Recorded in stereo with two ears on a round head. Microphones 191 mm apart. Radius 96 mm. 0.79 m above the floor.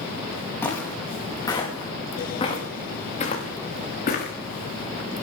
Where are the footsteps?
10° left (ahead or behind), 7 m; by 4.3 s 45° left (ahead or behind), 5.5 m.